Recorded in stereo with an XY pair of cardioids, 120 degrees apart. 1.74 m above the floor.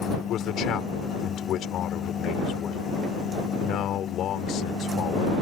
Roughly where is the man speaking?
Ahead left.